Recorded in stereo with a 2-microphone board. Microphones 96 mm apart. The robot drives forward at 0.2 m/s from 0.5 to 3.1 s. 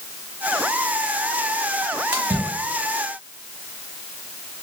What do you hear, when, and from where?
2.1 s a splash: 20° right (ahead or behind), 0.9 m